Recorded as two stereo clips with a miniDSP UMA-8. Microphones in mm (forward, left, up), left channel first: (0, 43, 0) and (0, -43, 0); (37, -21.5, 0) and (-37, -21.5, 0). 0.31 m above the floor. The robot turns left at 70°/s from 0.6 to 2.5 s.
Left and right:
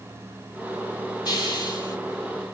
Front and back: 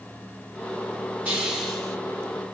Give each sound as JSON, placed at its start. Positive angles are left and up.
{"t": 1.2, "sound": "a hiss", "azimuth_deg": 120, "distance_m": 1.9}